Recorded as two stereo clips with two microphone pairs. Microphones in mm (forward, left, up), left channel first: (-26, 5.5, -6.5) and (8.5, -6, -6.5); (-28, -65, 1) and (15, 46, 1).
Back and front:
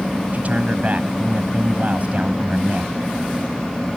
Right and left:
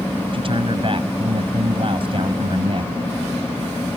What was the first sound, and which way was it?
A man speaking, 25° left.